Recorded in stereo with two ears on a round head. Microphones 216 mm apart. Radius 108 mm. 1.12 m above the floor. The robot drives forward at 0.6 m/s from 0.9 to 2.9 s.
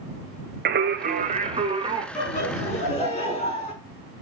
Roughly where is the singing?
Right.